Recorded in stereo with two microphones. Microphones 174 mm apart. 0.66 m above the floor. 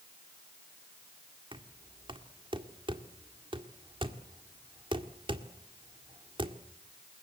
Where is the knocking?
30° right (ahead or behind), 1.8 m.